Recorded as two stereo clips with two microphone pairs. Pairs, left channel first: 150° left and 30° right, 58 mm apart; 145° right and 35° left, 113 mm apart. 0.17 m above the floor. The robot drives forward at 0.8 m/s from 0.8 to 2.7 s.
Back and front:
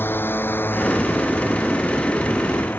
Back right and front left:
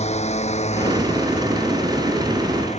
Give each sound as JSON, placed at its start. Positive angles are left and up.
{"t": 0.0, "sound": "a drone", "azimuth_deg": -155}